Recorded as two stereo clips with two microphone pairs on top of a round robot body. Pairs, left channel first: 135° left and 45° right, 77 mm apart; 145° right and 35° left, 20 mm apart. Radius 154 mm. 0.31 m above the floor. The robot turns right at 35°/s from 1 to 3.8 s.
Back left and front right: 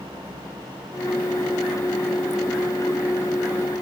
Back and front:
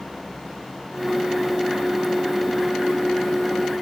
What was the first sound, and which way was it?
Only background noise.